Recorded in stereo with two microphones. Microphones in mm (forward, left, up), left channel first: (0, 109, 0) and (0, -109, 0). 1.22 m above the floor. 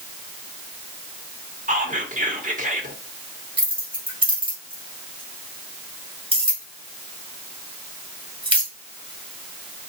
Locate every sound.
1.7 s whispering: 35° right (ahead or behind), 1.2 m
3.6 s keys jangling: 25° right (ahead or behind), 1.7 m